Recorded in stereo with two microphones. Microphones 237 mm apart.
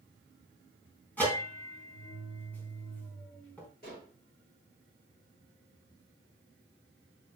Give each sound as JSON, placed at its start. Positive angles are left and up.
{"t": 1.2, "sound": "a bell", "side_deg": 5, "distance_m": 3.5}
{"t": 3.8, "sound": "dishes clattering", "side_deg": 40, "distance_m": 7.0}